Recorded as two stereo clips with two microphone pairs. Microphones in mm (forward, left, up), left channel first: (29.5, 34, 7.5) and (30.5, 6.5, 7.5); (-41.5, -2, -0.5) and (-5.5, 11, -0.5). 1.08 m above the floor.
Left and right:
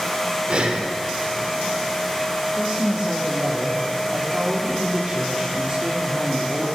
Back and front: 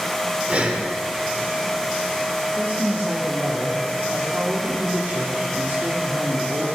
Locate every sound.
0.5 s breathing: 40° right, 1.7 m
2.6 s a woman speaking: 15° right, 2 m